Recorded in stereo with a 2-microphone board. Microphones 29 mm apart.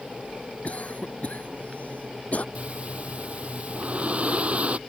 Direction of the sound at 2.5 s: 40° right (ahead or behind).